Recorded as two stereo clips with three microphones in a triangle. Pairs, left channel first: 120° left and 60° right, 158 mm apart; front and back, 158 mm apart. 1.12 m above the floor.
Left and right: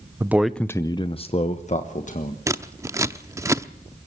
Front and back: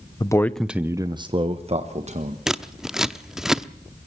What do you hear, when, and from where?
0.2 s a man speaking: 10° right, 0.7 m; by 2.4 s 145° left, 1.6 m
2.5 s scissors: 100° right, 0.6 m